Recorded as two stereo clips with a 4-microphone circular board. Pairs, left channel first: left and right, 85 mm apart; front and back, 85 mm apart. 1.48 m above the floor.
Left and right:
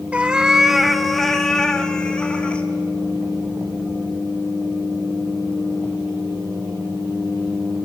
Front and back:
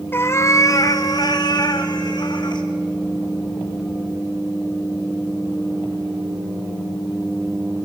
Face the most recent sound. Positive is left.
turn(degrees=15)